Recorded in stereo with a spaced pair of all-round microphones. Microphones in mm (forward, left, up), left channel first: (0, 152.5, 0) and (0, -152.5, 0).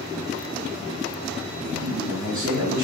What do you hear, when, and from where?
1.6 s a man speaking: 85° right, 3 m